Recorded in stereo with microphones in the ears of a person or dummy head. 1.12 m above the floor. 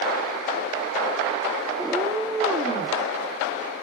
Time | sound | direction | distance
1.8 | a cat meowing | 5° right (ahead or behind) | 0.9 m